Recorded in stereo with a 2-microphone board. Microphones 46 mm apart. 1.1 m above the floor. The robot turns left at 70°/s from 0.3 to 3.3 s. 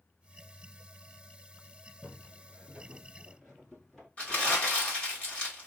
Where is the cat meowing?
No cat meowing in this recording.